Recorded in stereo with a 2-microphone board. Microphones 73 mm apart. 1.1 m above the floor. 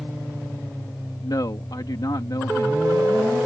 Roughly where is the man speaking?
Left.